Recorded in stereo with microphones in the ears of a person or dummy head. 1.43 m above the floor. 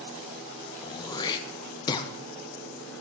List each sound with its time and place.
0.8 s throat clearing: 25° left (ahead or behind), 0.8 m